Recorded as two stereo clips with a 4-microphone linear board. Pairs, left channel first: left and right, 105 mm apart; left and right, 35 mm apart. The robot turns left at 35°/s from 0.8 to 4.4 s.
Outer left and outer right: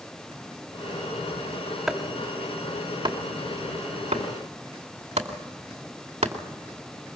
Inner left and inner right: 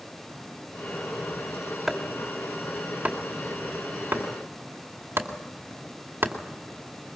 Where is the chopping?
Centre (ahead or behind), 2.5 m; by 6.3 s 80° right, 2.5 m.